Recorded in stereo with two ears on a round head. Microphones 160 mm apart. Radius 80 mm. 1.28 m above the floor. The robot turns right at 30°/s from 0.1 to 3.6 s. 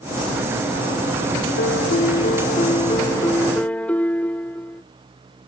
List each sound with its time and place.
1.6 s a piano: 110° left; by 4.8 s 170° left